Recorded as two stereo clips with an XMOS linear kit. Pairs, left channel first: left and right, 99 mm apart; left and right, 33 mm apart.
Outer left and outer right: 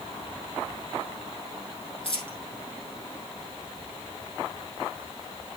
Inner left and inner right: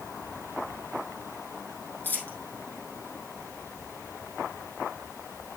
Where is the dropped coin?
65° left (ahead or behind), 3.5 m.